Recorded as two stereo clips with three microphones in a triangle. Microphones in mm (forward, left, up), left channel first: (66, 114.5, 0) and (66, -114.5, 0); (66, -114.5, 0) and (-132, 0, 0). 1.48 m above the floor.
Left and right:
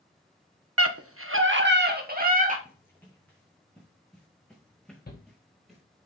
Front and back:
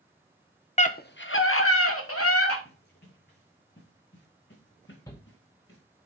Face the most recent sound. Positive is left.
turn(degrees=45)